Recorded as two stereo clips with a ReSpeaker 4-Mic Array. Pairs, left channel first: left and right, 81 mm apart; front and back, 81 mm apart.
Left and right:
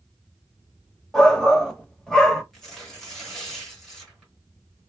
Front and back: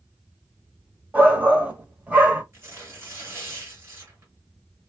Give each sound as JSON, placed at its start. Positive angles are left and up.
{"t": 1.1, "sound": "a shout", "azimuth_deg": 155, "distance_m": 0.9}
{"t": 2.5, "sound": "tearing paper", "azimuth_deg": 175, "distance_m": 1.6}